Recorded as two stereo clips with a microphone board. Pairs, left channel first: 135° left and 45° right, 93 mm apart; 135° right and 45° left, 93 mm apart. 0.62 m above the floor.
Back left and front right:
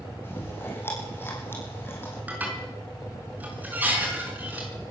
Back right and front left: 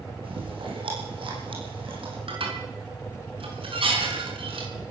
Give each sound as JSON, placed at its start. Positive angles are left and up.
{"t": 0.2, "sound": "chewing", "azimuth_deg": 70, "distance_m": 7.0}
{"t": 2.3, "sound": "dishes clattering", "azimuth_deg": 25, "distance_m": 5.5}